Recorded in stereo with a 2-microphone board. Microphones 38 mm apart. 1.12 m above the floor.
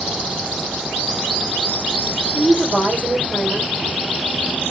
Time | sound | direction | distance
2.3 | a woman speaking | 85° right | 3 m